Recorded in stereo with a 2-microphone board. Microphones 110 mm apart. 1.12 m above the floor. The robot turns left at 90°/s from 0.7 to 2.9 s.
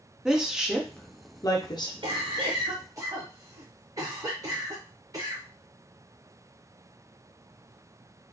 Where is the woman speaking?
5° right (ahead or behind), 0.6 m; by 1.9 s 40° left (ahead or behind), 0.6 m.